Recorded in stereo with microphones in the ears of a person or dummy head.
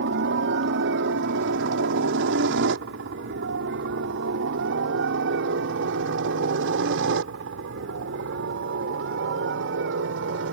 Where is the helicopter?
60° right (ahead or behind); by 10.5 s 70° right (ahead or behind).